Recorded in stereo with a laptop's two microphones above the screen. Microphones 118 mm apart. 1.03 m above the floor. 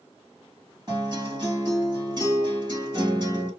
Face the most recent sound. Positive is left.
turn(degrees=-35)  # may be behind; listen again after turning